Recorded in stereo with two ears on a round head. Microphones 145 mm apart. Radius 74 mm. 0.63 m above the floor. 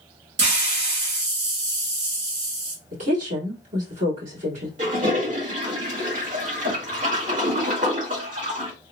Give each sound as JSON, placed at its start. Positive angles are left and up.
{"t": 0.4, "sound": "a hiss", "side_deg": -80, "distance_m": 2.0}
{"t": 2.9, "sound": "a woman speaking", "side_deg": -50, "distance_m": 1.7}
{"t": 4.8, "sound": "a toilet flushing", "side_deg": -55, "distance_m": 1.9}